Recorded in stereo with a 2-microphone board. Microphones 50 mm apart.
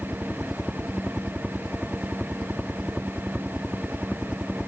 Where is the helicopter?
10° right (ahead or behind).